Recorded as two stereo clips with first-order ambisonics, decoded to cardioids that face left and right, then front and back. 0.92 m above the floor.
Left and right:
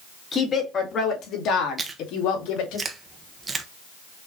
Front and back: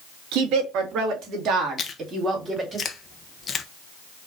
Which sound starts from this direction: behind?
A woman speaking, at 0.3 s.